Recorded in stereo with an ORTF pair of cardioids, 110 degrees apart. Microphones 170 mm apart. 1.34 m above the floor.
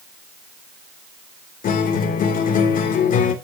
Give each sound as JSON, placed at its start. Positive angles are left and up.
{"t": 1.6, "sound": "a guitar", "azimuth_deg": 55, "distance_m": 2.5}